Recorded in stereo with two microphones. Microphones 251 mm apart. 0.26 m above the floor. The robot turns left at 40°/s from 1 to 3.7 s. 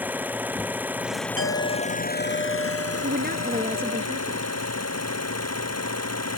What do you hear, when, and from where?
0.0 s an engine running: 175° right; by 6.4 s 80° left
1.4 s a clink: 60° left; by 4.0 s 35° right
3.0 s a woman speaking: 45° right (ahead or behind); by 4.5 s 20° right (ahead or behind)